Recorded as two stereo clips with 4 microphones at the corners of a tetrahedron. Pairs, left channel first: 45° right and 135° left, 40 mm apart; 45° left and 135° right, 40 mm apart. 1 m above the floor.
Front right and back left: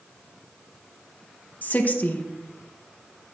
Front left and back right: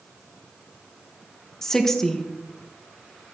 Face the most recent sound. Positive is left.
turn(degrees=-30)